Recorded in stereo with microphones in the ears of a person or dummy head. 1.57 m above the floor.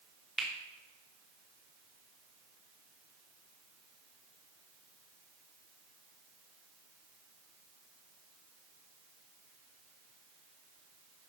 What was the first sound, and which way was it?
A finger snap, 5° right (ahead or behind).